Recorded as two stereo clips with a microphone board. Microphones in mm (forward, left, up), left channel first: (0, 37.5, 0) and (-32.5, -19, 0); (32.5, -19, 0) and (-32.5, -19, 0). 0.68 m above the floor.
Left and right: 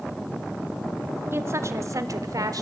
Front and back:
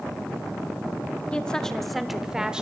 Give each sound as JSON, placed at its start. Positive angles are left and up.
{"t": 1.3, "sound": "a woman speaking", "azimuth_deg": -70, "distance_m": 1.4}